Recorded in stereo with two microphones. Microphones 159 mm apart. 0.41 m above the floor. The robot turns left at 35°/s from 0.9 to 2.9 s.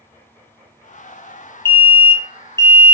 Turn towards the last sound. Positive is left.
turn(degrees=20)  # may be behind; listen again after turning